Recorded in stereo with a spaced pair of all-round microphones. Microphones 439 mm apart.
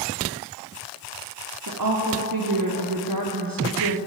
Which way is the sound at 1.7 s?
50° right (ahead or behind).